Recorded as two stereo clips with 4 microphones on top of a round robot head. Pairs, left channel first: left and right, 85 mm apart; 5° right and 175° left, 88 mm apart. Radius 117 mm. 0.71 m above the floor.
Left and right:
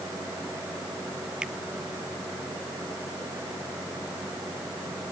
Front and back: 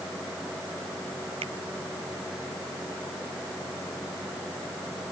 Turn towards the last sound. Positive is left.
turn(degrees=-170)